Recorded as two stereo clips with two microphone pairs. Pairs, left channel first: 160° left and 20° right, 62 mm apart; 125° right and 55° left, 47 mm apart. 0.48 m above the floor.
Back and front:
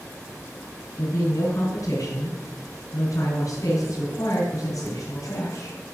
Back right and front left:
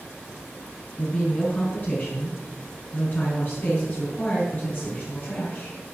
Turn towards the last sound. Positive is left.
turn(degrees=-175)